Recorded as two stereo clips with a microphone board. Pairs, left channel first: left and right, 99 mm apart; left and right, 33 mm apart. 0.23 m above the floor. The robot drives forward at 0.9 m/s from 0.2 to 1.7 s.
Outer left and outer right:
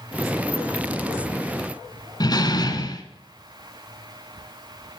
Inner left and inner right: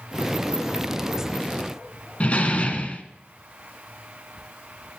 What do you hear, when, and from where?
2.2 s a door slam: 45° left (ahead or behind), 1.8 m